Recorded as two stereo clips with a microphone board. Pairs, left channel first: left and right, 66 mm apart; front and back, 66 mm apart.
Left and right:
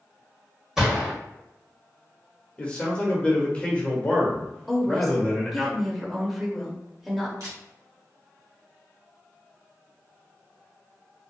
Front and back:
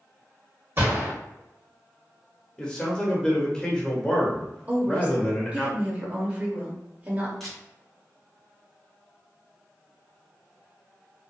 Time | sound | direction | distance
0.8 | a gunshot | 170° right | 1.6 m
2.6 | a man speaking | 55° left | 0.9 m
4.7 | a woman speaking | straight behind | 0.8 m
7.4 | a camera shutter | 85° right | 1.4 m